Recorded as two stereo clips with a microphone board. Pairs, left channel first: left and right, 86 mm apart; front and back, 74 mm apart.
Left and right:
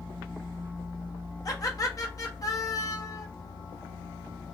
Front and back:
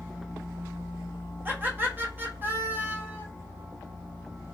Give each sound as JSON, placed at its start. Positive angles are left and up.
{"t": 1.4, "sound": "laughter", "azimuth_deg": 125, "distance_m": 0.8}